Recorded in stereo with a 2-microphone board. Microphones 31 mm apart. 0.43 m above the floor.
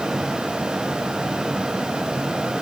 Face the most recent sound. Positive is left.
No sound to turn to.